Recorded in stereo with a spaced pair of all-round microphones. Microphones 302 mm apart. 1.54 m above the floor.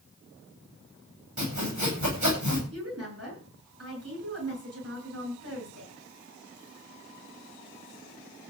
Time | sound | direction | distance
1.4 | sawing | 65° right (ahead or behind) | 9 m
2.7 | a woman speaking | 50° right (ahead or behind) | 10 m